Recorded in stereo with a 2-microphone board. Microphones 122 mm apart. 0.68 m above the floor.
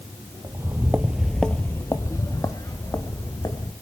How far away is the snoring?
No snoring in this recording.